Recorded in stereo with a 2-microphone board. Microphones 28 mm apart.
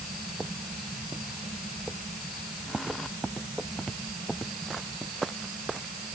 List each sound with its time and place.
Only background noise.